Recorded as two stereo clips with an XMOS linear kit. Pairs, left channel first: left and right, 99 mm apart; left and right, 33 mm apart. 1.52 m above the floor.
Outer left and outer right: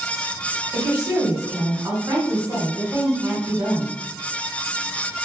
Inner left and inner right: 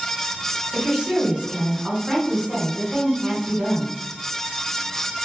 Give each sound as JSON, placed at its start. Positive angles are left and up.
{"t": 0.7, "sound": "a woman speaking", "side_deg": -30, "distance_m": 1.3}